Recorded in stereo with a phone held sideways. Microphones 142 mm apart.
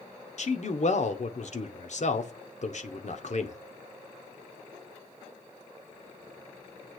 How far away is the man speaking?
About 1.1 m.